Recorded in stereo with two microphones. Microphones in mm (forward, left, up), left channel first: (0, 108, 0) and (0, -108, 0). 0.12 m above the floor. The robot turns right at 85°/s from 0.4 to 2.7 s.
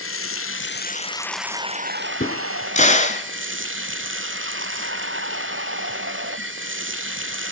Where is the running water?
95° left, 0.9 m; by 7.5 s 70° right, 0.9 m.